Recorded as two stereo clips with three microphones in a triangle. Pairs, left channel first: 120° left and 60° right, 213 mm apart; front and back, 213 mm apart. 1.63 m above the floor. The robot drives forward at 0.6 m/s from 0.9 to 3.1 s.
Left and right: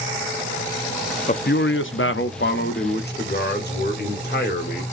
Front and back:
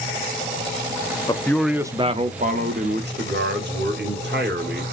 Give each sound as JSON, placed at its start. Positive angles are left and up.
{"t": 1.3, "sound": "a man speaking", "azimuth_deg": 65, "distance_m": 0.5}